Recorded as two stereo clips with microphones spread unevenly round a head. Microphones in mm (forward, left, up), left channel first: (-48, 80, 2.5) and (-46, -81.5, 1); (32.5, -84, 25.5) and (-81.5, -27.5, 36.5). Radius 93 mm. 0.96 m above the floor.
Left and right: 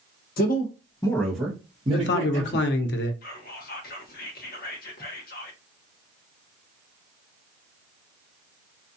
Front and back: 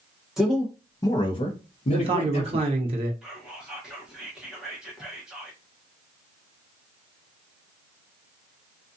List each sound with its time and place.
0.4 s a man speaking: 65° left, 0.8 m; by 2.7 s 45° right, 1.2 m
1.9 s a man speaking: 95° left, 0.6 m
3.2 s whispering: 65° left, 0.8 m